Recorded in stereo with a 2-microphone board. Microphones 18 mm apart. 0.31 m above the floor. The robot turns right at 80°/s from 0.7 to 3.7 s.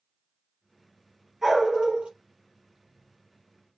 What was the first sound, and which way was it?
A dog barking, 165° right.